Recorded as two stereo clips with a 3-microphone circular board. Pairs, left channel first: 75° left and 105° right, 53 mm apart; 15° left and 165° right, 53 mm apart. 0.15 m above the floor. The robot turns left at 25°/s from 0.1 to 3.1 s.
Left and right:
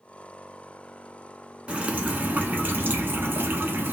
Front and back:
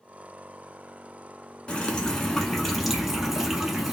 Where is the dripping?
50° right, 0.7 m; by 3.9 s 85° right, 0.7 m.